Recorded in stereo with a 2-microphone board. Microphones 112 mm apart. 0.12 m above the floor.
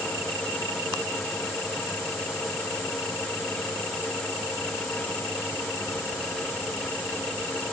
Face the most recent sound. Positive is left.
No sound to turn to.